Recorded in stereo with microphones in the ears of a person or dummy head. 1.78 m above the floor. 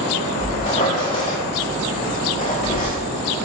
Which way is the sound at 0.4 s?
30° left (ahead or behind).